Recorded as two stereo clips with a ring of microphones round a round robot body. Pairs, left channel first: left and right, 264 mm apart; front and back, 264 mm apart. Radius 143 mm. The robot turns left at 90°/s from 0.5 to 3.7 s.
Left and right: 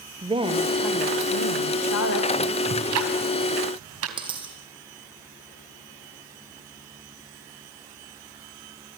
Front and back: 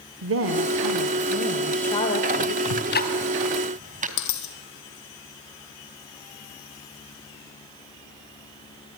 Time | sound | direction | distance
0.2 | a woman speaking | 155° right | 1.6 m
2.6 | ticking | 25° right | 3 m
4.2 | a dropped coin | 15° right | 2.5 m